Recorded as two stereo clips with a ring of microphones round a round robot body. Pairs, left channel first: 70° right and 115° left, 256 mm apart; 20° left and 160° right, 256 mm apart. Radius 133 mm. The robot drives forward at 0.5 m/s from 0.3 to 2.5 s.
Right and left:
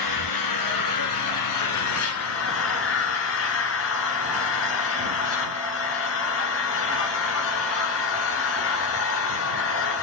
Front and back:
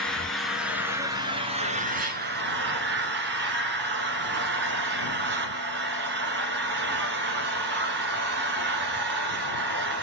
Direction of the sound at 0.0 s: 65° right.